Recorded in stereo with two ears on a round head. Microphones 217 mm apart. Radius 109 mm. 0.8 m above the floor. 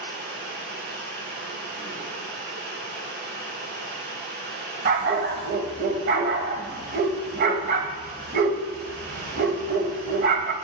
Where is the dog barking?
40° right (ahead or behind), 0.9 m.